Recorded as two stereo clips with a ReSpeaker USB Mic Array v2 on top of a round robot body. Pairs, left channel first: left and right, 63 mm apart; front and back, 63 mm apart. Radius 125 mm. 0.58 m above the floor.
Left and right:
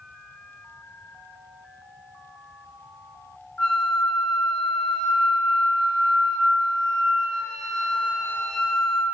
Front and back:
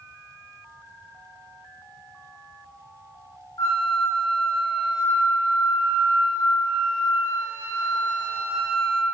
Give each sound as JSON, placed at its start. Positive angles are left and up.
{"t": 3.6, "sound": "a flute", "azimuth_deg": 15, "distance_m": 3.0}